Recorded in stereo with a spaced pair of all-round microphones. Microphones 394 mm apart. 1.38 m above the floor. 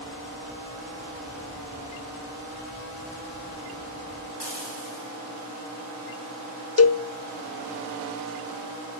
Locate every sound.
4.4 s frying: 85° right, 5 m
6.8 s a cowbell: 40° left (ahead or behind), 0.5 m